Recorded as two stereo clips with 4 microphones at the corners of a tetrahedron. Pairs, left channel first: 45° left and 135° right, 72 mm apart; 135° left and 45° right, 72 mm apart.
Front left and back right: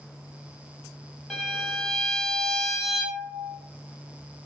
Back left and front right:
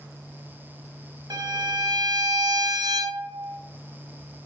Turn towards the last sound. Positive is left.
turn(degrees=-40)